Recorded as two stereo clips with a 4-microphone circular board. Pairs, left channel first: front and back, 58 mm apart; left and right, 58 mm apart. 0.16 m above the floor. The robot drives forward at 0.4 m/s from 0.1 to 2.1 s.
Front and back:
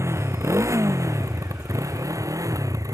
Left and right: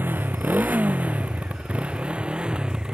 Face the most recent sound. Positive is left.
turn(degrees=-170)